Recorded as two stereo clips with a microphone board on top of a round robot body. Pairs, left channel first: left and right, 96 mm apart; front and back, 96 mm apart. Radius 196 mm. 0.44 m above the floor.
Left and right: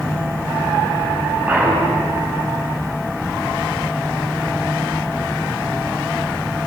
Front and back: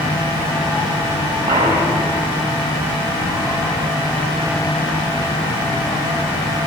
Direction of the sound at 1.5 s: 160° right.